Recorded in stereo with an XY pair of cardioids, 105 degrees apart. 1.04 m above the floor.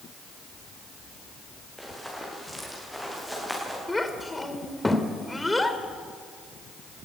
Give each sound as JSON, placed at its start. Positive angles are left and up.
{"t": 1.8, "sound": "running footsteps", "azimuth_deg": 0, "distance_m": 8.5}
{"t": 3.9, "sound": "a child speaking", "azimuth_deg": 15, "distance_m": 2.5}